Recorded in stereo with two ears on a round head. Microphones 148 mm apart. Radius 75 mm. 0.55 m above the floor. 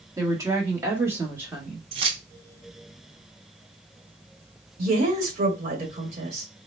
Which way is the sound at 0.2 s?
20° right (ahead or behind).